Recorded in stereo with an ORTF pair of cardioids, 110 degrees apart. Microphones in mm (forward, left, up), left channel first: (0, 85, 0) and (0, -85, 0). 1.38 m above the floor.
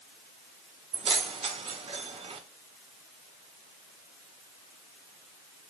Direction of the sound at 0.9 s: 35° right.